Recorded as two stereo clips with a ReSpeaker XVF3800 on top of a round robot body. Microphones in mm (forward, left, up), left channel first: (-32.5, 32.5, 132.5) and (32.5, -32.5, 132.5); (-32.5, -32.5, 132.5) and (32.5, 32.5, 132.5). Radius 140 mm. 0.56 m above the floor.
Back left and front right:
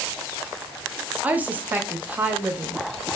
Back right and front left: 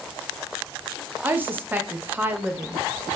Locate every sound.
1.2 s a woman speaking: 5° left, 0.7 m